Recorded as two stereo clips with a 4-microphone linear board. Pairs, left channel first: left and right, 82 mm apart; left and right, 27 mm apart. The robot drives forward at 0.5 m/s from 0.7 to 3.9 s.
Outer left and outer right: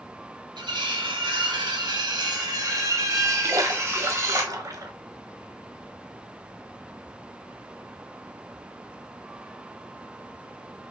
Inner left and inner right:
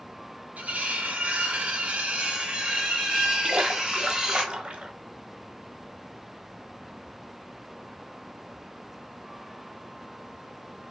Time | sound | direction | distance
0.6 | cutlery clinking | 75° right (ahead or behind) | 1.0 m
3.4 | a splash | 45° right (ahead or behind) | 0.9 m